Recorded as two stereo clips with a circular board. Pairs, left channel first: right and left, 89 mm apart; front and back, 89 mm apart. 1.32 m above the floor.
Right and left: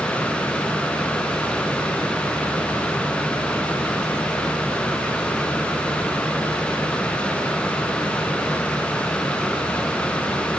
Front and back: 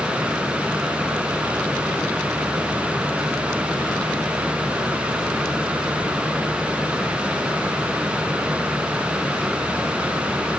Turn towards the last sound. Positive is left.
No sound to turn to.